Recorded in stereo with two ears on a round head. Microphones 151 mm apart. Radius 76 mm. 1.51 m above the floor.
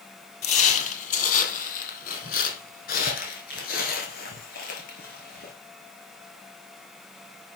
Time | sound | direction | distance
0.4 | footsteps | 45° left (ahead or behind) | 2 m